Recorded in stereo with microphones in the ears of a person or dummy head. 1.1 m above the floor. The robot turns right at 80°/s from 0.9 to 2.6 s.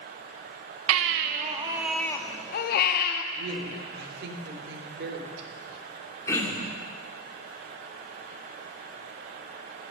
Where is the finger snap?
I don't hear a finger snap.